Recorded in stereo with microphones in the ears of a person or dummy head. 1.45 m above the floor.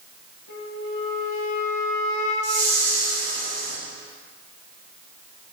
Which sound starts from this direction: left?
A flute, at 0.5 s.